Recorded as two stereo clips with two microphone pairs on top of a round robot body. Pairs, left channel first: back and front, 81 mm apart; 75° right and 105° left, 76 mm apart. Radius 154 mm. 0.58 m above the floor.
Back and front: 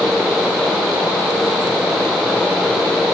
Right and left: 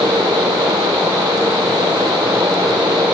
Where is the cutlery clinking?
No cutlery clinking in this recording.